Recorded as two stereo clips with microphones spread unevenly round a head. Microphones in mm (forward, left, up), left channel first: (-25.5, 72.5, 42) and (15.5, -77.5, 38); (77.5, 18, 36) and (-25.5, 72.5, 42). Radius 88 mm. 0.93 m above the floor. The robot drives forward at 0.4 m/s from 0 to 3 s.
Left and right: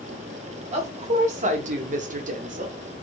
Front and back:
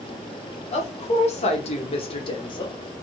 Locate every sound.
0.7 s a woman speaking: 30° right, 1.3 m; by 2.8 s 70° right, 0.9 m